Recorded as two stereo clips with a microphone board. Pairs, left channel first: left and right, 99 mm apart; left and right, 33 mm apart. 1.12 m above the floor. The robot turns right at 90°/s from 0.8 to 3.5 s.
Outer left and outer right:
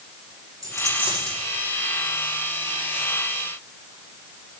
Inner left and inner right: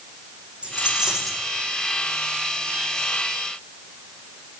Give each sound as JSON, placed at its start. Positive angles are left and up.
{"t": 0.6, "sound": "a dropped coin", "azimuth_deg": -35, "distance_m": 8.5}